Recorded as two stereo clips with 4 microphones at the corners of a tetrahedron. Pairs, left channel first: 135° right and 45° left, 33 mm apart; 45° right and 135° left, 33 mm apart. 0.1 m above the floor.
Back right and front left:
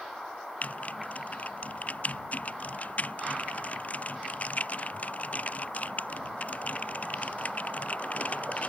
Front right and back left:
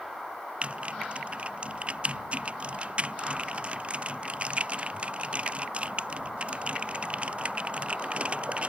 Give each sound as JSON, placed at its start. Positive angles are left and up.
{"t": 0.6, "sound": "typing on a keyboard", "azimuth_deg": -175}